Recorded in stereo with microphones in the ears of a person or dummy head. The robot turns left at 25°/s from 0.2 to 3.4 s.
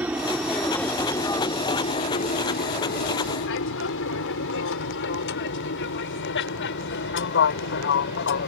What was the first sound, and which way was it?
An aircraft, 5° right (ahead or behind).